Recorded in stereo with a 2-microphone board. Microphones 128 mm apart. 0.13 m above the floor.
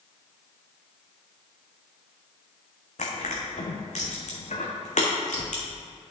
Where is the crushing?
85° left, 1.7 m.